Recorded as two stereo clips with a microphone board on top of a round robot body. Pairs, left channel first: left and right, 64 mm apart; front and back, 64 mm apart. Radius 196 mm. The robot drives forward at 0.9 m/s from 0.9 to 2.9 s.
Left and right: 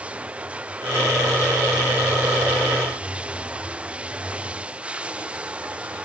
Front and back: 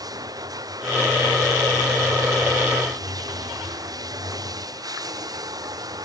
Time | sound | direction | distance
0.0 | running water | 160° right | ?